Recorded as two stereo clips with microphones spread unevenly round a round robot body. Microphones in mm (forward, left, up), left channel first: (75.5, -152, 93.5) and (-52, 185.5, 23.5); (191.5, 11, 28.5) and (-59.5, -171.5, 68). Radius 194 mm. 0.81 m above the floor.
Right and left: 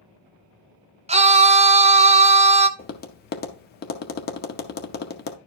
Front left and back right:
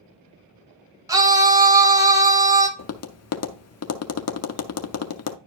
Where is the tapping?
5° right, 0.7 m.